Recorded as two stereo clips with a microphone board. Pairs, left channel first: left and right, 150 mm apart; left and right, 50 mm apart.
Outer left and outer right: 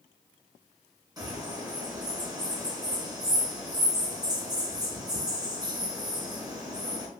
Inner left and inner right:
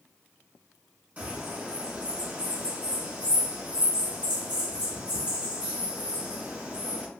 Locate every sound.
1.2 s a bird: 25° right (ahead or behind), 1.1 m